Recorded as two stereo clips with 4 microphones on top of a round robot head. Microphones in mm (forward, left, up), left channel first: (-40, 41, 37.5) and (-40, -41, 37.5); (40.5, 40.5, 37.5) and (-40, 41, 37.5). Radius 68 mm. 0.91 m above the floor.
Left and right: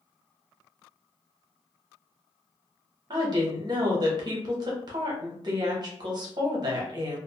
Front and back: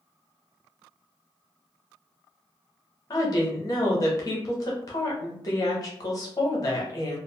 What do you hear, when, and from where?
3.1 s a woman speaking: 50° right, 0.7 m